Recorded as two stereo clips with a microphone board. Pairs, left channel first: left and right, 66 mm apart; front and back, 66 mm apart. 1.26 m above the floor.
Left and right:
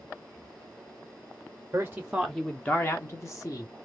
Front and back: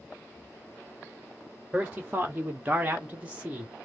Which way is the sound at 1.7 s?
120° right.